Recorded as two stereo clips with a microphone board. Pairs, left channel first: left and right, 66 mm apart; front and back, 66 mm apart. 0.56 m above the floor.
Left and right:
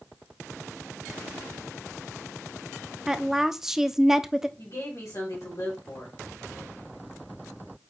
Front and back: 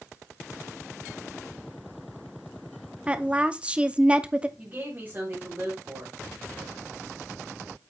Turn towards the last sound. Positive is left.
turn(degrees=120)